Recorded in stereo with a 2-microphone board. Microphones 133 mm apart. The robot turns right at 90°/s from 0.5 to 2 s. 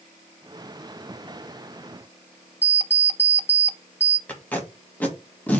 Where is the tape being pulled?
10° left (ahead or behind), 1.9 m.